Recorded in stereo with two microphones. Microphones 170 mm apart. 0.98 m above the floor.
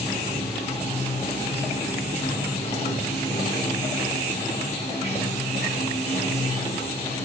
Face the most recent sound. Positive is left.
turn(degrees=35)  # may be behind; listen again after turning